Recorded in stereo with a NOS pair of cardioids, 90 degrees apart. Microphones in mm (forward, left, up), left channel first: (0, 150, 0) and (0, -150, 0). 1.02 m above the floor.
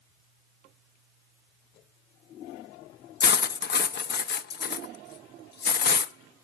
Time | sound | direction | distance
3.2 | cutlery clinking | 35° left | 0.7 m